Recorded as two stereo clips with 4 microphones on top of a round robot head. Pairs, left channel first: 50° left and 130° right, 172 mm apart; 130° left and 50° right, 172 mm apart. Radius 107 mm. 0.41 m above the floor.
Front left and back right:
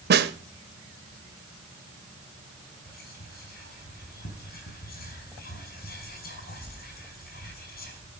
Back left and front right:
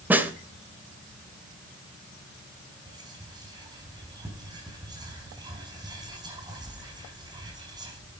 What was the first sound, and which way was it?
A snare drum, 130° right.